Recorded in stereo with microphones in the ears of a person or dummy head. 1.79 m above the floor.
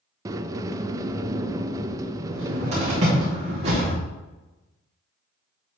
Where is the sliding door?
15° right (ahead or behind), 0.6 m.